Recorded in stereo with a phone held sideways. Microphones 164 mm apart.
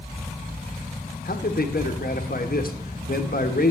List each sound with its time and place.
1.2 s a man speaking: 65° left (ahead or behind), 1.4 m